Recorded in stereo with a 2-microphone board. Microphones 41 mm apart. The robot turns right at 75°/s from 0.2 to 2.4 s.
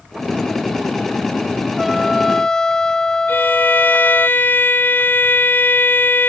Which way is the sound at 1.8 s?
5° right (ahead or behind).